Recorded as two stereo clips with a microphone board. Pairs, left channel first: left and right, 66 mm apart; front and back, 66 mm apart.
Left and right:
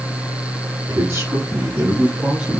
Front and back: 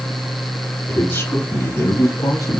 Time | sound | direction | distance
0.9 | a man speaking | 45° right | 2.5 m